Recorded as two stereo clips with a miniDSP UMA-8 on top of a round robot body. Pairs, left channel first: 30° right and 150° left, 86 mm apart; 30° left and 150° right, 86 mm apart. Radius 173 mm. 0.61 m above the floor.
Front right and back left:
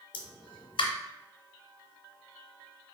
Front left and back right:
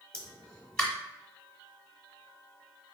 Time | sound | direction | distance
0.1 | a pop | 50° right | 0.7 m